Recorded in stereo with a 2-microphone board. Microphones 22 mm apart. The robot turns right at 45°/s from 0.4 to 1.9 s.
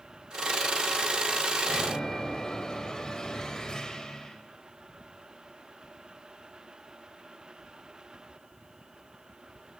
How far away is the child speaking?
No child speaking in this recording.